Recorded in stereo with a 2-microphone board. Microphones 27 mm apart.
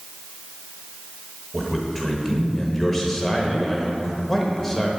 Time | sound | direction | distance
1.5 | a man speaking | 10° left (ahead or behind) | 0.9 m